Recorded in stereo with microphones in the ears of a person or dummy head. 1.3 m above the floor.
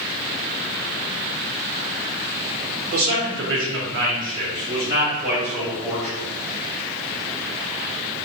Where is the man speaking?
55° right (ahead or behind), 1.3 m; by 6.1 s centre (ahead or behind), 2 m.